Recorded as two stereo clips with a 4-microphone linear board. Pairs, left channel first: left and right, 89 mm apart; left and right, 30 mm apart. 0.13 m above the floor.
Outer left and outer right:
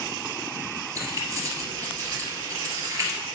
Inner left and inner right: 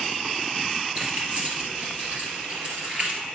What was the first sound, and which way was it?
Keys jangling, 40° right (ahead or behind).